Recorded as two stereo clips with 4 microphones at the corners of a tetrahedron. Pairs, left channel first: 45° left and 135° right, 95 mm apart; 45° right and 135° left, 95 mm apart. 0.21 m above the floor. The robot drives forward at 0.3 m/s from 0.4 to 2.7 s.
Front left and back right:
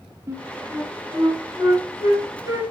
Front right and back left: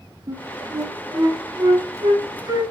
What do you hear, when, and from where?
0.3 s a flute: straight behind, 2.5 m